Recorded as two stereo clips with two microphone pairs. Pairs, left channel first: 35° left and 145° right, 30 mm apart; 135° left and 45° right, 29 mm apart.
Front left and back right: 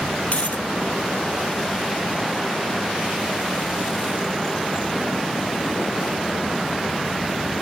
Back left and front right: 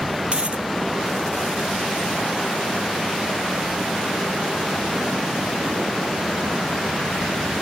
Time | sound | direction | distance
0.3 | a dropped coin | straight ahead | ?